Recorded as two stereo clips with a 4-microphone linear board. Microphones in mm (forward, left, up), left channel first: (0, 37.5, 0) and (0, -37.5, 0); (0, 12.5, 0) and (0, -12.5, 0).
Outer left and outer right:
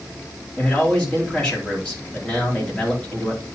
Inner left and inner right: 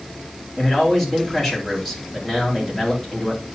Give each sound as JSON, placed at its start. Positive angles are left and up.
{"t": 0.6, "sound": "a man speaking", "side_deg": 10, "distance_m": 3.5}